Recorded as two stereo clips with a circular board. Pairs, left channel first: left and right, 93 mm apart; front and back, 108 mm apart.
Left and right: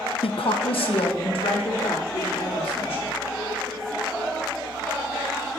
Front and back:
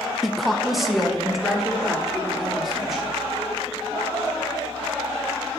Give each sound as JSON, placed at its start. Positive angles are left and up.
{"t": 0.2, "sound": "a woman speaking", "azimuth_deg": 90, "distance_m": 0.6}